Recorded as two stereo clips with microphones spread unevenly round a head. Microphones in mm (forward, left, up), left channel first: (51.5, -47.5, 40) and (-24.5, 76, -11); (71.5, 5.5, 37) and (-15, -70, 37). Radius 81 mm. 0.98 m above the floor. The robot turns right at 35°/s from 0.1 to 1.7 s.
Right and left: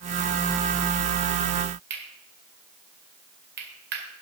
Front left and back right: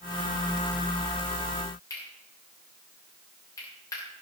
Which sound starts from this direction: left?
Cutlery clinking, at 1.9 s.